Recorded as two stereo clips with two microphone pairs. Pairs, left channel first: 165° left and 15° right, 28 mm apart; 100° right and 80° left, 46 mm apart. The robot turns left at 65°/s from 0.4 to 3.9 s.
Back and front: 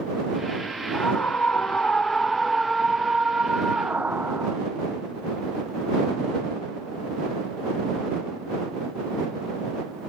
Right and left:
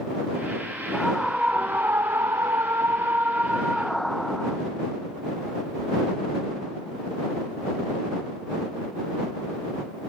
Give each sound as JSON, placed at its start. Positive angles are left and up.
{"t": 0.9, "sound": "a scream", "azimuth_deg": 180}